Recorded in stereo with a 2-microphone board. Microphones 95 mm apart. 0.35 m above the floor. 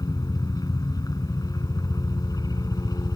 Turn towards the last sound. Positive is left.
turn(degrees=40)  # may be behind; listen again after turning